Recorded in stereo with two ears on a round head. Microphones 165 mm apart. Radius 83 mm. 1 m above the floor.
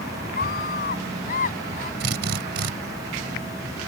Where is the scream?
60° left (ahead or behind); by 1.9 s 50° left (ahead or behind).